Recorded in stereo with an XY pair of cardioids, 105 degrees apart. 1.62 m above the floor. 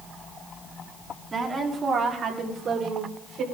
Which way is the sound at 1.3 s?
35° right.